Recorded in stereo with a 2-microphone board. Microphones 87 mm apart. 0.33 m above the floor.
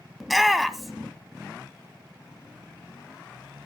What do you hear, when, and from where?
0.2 s a shout: centre (ahead or behind), 0.8 m